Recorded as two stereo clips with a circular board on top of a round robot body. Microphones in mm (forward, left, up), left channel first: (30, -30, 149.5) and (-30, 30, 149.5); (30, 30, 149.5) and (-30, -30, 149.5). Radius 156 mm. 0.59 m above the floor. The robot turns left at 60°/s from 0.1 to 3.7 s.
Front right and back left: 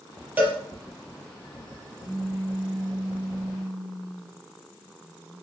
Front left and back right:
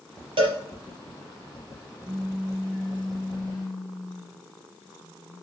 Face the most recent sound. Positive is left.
turn(degrees=60)